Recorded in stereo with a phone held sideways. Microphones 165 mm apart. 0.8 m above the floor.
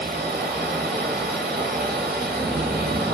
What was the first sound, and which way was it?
A machine running, 70° right (ahead or behind).